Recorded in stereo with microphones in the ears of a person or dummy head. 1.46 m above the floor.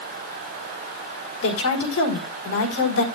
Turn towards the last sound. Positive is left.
turn(degrees=85)